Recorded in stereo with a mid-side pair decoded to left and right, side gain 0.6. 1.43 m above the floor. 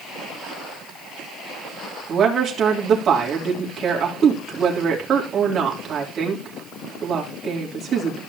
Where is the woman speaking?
45° right, 3 m.